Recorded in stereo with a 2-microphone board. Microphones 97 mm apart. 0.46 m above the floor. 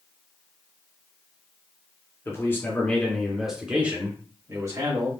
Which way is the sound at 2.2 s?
30° left (ahead or behind).